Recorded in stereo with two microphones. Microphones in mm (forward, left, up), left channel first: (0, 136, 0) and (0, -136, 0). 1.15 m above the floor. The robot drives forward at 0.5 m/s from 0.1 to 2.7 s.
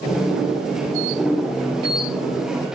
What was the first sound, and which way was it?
Only background noise.